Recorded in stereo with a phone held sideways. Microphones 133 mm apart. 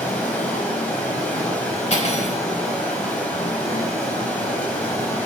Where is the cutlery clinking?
60° left (ahead or behind), 3.5 m.